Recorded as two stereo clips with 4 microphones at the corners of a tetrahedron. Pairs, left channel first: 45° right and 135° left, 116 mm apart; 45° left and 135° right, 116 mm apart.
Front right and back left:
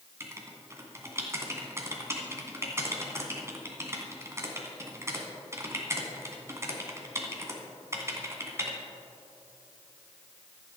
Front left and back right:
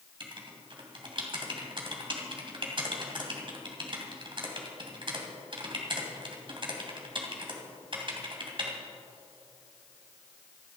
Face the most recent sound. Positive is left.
turn(degrees=-165)